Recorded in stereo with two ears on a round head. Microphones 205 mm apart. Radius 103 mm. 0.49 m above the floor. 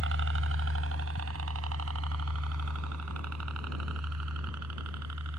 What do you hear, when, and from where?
0.0 s a helicopter: 55° right (ahead or behind); by 5.4 s 80° right